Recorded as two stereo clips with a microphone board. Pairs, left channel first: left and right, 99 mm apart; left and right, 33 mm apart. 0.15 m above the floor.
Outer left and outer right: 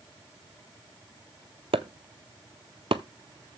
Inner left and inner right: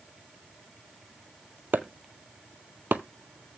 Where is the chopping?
85° right, 0.6 m.